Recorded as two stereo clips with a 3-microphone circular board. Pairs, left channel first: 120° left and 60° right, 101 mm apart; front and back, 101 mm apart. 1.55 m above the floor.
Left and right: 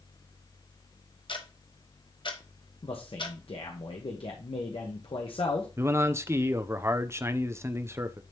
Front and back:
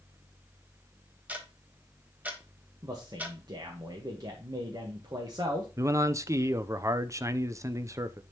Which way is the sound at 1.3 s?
110° left.